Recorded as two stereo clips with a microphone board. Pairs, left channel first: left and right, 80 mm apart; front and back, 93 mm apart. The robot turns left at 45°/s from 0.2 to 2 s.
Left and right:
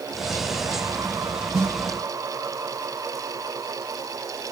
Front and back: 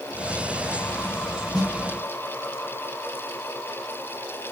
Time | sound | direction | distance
1.5 | a snare drum | 45° right | 1.1 m